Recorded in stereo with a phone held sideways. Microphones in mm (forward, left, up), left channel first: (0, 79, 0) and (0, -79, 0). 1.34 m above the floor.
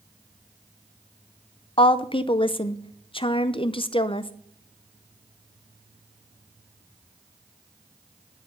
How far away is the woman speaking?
About 0.5 m.